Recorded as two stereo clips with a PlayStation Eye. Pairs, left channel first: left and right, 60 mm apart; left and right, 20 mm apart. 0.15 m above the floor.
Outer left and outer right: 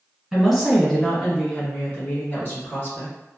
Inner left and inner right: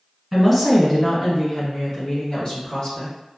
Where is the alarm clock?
No alarm clock in this recording.